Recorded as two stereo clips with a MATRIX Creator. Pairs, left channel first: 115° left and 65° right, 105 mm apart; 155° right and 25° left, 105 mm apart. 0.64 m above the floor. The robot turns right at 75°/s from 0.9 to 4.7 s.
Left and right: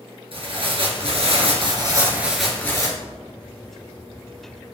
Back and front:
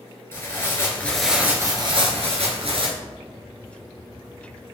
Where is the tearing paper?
90° right, 2 m; by 2.9 s 60° left, 2 m.